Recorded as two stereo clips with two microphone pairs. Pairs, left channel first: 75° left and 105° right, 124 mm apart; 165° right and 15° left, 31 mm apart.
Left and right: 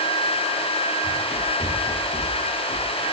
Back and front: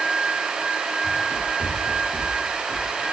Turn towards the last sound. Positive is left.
turn(degrees=165)